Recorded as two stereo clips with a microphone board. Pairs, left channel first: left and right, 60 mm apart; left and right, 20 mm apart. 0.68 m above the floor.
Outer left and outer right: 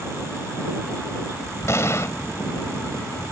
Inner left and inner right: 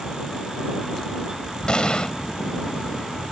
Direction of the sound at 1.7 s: 50° left (ahead or behind).